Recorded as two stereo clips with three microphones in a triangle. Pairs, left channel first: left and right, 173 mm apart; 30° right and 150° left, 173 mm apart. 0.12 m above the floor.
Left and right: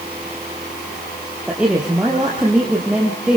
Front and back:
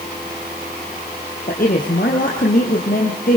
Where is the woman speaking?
5° right, 3 m.